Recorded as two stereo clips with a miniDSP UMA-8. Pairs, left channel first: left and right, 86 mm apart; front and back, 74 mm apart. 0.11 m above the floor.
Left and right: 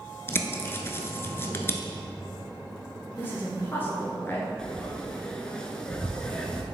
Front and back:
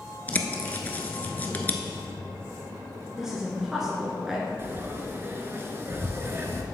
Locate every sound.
0.3 s a bird: 50° left, 0.6 m
3.2 s a woman speaking: 105° left, 1.1 m
4.6 s frying: 165° left, 0.7 m